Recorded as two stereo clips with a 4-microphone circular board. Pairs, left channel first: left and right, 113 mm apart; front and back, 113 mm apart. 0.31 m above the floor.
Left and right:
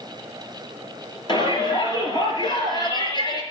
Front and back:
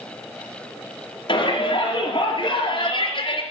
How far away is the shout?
About 5.5 m.